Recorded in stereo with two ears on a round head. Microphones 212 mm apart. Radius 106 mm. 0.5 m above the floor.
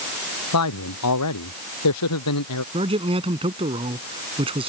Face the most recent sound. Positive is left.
turn(degrees=-25)  # may be behind; listen again after turning